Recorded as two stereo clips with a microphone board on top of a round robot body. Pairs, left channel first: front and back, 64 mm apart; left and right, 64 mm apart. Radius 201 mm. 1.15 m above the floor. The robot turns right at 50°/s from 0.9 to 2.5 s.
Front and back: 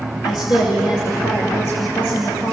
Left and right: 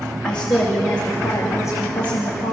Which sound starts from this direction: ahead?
A woman speaking, at 0.2 s.